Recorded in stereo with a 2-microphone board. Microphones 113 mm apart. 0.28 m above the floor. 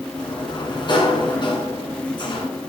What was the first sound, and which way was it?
A sliding door, 45° left (ahead or behind).